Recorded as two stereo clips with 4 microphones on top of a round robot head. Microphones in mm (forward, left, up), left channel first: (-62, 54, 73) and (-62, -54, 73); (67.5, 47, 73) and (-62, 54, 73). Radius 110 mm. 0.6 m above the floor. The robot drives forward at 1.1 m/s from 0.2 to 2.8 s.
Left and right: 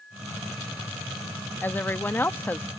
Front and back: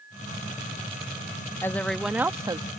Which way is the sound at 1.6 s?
40° left.